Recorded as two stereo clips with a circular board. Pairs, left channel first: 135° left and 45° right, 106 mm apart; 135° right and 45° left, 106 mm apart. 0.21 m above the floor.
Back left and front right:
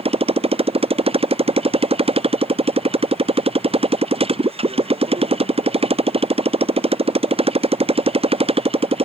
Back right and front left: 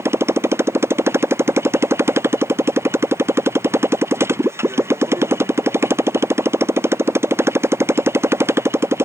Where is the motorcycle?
20° right.